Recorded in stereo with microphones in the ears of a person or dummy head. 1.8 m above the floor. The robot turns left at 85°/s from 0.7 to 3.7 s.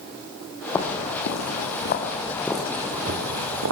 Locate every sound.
0.8 s footsteps: 15° left (ahead or behind), 3.5 m; by 3.7 s 70° right (ahead or behind), 5.5 m